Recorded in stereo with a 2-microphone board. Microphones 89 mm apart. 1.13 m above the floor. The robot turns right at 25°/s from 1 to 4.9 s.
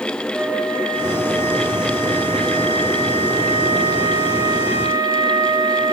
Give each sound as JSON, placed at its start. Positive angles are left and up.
{"t": 0.3, "sound": "a flute", "azimuth_deg": 15, "distance_m": 7.5}